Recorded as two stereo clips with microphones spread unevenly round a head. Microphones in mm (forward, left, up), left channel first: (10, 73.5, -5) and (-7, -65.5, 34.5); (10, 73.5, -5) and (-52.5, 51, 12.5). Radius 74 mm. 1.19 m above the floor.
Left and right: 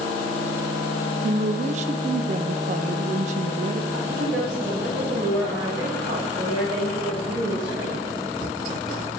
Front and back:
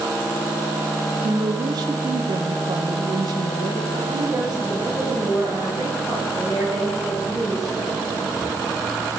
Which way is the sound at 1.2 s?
135° right.